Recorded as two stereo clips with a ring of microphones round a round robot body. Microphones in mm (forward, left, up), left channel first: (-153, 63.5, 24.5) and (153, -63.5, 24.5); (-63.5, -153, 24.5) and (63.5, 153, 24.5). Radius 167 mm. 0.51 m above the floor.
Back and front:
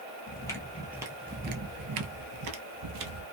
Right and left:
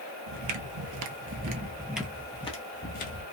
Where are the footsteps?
85° left, 0.9 m; by 3.2 s 50° right, 1.1 m.